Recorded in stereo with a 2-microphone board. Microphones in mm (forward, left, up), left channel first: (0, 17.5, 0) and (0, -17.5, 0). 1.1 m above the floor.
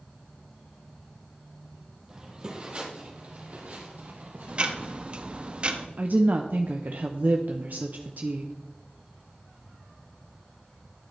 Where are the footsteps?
15° right (ahead or behind), 1.7 m; by 5.5 s 65° right (ahead or behind), 2.5 m.